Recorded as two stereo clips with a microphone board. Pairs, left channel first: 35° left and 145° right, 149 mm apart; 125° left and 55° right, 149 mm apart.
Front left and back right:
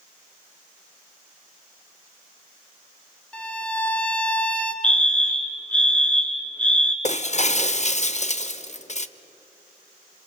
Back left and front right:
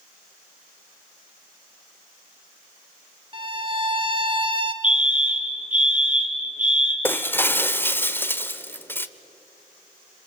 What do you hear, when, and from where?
3.3 s a violin: 40° right, 1.3 m
4.8 s a fire alarm: 45° right, 3 m
7.0 s breaking glass: 50° left, 0.8 m